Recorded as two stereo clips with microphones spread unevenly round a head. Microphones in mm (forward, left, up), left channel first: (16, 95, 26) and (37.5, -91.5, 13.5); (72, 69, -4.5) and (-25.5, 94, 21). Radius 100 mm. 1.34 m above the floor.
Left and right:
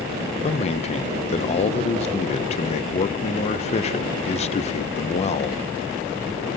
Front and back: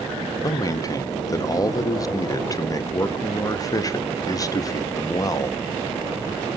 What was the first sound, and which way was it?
A man speaking, 40° left.